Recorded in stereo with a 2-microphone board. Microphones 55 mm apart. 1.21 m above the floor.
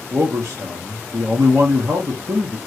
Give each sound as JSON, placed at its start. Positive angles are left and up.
{"t": 0.1, "sound": "a man speaking", "side_deg": -65, "distance_m": 1.2}